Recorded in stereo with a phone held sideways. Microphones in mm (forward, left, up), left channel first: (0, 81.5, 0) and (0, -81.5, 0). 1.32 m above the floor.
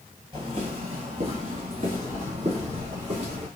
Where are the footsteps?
30° right (ahead or behind), 1.5 m; by 3.5 s 40° right (ahead or behind), 3.5 m.